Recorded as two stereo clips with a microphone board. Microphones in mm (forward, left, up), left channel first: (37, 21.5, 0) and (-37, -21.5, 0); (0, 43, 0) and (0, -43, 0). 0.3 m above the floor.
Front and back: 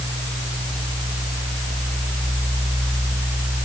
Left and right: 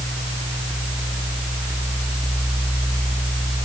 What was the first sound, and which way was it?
Only background noise.